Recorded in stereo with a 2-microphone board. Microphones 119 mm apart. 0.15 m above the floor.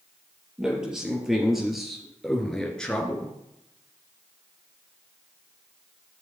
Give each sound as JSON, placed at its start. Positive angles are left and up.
{"t": 0.6, "sound": "a man speaking", "side_deg": -5, "distance_m": 4.0}